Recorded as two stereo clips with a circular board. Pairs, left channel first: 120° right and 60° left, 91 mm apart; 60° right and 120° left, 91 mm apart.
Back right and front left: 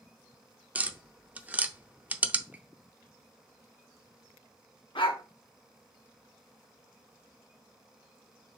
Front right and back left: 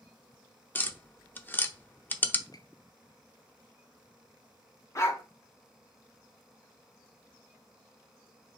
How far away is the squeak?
About 0.5 m.